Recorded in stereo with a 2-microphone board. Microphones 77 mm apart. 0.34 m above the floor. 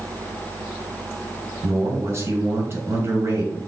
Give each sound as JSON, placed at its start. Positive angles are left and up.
{"t": 1.6, "sound": "a man speaking", "side_deg": -35, "distance_m": 1.6}